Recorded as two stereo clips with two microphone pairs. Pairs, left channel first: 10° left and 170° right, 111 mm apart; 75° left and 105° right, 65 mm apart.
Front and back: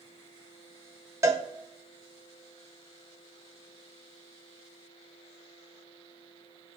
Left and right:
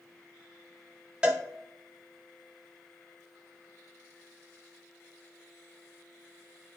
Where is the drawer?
No drawer in this recording.